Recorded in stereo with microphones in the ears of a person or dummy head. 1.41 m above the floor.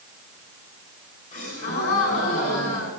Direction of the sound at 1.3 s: 40° left (ahead or behind).